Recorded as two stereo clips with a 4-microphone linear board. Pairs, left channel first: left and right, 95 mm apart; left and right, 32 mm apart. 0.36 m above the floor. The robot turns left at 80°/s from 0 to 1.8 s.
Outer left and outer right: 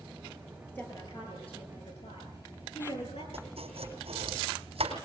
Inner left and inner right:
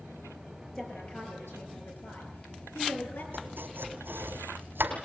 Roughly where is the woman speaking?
Behind.